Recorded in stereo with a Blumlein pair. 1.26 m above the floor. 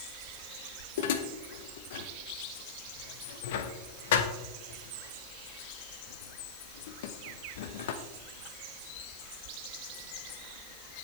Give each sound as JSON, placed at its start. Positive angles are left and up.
{"t": 1.0, "sound": "dishes clattering", "azimuth_deg": 55, "distance_m": 0.9}